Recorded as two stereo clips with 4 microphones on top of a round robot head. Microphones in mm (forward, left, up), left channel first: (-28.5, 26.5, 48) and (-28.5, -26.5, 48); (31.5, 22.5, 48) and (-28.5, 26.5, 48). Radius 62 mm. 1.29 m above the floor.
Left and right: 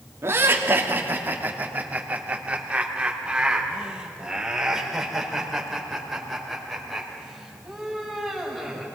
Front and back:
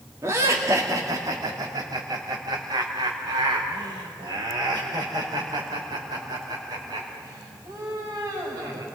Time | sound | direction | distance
0.2 | laughter | 130° right | 2.5 m